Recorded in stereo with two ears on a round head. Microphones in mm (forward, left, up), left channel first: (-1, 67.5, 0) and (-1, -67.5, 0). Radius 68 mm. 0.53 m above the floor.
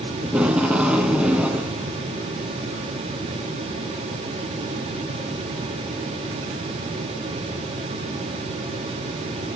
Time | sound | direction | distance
0.2 | tape being pulled | 10° right (ahead or behind) | 0.7 m